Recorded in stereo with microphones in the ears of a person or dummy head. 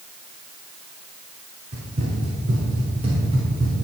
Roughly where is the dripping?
I don't hear dripping.